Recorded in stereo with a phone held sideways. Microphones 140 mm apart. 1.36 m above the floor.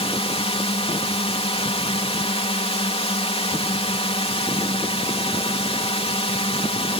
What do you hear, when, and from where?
0.0 s a drone: 45° left (ahead or behind)